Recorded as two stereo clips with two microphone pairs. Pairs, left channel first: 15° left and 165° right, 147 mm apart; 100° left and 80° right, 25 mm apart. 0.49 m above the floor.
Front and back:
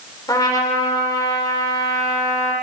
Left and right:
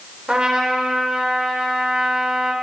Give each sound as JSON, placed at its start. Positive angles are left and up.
{"t": 0.3, "sound": "a trumpet", "azimuth_deg": -40, "distance_m": 1.5}